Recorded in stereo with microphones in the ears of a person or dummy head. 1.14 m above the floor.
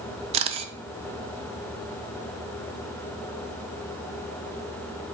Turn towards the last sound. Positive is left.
turn(degrees=-35)  # may be behind; listen again after turning